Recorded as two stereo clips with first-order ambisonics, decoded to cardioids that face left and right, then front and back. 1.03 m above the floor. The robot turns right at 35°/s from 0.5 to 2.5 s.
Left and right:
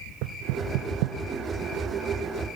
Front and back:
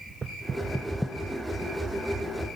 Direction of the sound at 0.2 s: 105° right.